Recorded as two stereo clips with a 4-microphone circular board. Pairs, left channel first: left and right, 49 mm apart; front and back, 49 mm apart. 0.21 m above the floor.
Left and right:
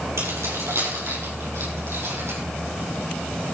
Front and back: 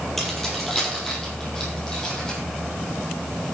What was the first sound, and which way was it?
Keys jangling, 85° right.